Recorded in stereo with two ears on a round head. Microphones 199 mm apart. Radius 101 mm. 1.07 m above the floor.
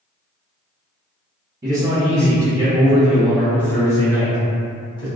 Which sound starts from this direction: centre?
A man speaking, at 1.6 s.